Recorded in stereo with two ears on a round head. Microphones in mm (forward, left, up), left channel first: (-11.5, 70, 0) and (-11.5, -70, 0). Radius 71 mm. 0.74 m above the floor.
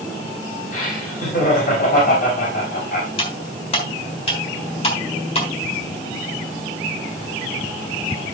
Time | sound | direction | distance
0.7 | laughter | 55° left (ahead or behind) | 4 m
3.2 | cutlery clinking | 35° left (ahead or behind) | 3 m